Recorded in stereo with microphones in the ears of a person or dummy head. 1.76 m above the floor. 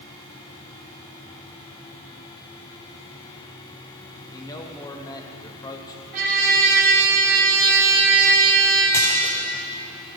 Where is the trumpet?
50° right (ahead or behind), 2 m.